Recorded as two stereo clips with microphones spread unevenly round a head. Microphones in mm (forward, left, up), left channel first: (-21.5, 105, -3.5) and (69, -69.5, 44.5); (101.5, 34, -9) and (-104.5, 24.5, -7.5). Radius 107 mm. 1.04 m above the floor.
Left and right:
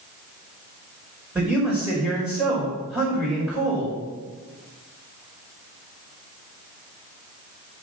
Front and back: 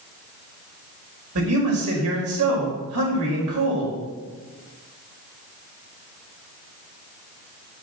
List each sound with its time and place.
1.4 s a man speaking: 150° right, 4.5 m